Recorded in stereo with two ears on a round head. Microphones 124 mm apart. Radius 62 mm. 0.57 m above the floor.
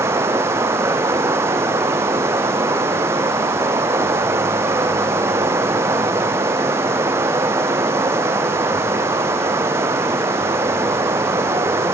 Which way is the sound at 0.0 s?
20° right (ahead or behind).